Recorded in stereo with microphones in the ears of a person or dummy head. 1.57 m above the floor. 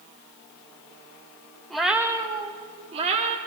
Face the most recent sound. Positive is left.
turn(degrees=-40)  # may be behind; listen again after turning